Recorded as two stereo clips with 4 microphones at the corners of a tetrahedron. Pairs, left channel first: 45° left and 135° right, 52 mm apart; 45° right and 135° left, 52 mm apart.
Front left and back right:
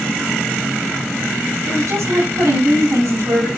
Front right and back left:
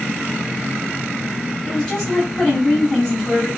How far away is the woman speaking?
About 7 m.